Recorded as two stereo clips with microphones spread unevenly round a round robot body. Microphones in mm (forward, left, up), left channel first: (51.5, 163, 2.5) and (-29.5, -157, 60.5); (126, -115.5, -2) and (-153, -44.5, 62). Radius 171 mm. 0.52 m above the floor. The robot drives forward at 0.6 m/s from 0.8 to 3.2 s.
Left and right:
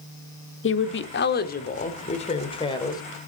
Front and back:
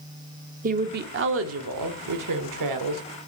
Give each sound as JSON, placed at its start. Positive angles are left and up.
{"t": 0.6, "sound": "a woman speaking", "azimuth_deg": 100, "distance_m": 1.2}